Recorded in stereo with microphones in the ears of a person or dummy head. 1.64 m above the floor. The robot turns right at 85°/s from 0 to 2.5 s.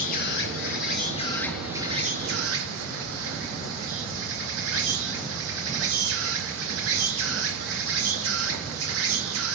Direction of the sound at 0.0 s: 45° left.